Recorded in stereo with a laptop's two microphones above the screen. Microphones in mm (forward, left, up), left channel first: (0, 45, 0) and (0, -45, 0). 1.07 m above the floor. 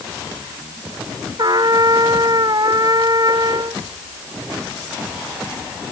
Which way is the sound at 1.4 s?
50° right (ahead or behind).